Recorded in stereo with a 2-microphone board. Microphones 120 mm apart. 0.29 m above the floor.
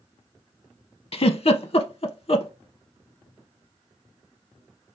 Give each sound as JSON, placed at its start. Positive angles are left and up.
{"t": 1.1, "sound": "a giggle", "side_deg": 55, "distance_m": 0.5}